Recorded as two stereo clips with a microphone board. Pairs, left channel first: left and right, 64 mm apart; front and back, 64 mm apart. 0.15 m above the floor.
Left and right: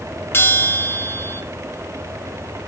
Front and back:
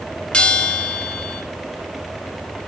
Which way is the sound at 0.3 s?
65° left.